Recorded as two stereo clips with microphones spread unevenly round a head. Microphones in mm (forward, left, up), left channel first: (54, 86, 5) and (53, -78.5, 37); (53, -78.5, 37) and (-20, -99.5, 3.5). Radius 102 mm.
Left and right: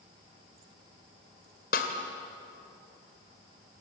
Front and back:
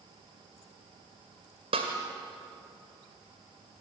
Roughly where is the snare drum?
Behind left.